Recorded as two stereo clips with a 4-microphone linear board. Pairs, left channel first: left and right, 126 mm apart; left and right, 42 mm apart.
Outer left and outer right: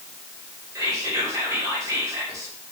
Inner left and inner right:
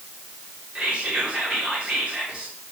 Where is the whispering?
30° right (ahead or behind), 1.3 m.